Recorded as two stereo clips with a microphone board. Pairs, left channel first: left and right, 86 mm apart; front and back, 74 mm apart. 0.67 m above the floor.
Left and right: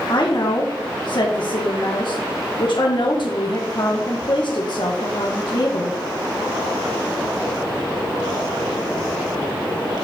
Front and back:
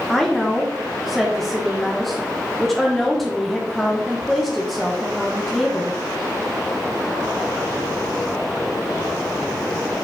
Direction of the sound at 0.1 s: 85° left.